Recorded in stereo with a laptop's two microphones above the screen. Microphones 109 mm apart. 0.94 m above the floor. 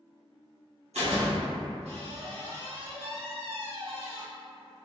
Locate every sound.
0.9 s a door slam: 85° right, 1.3 m